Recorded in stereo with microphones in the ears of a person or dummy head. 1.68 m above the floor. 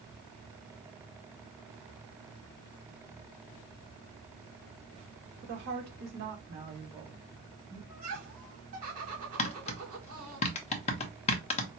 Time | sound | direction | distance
5.4 | a woman speaking | 60° right (ahead or behind) | 1.5 m
7.9 | laughter | 40° right (ahead or behind) | 3 m
9.4 | tapping | 30° left (ahead or behind) | 0.8 m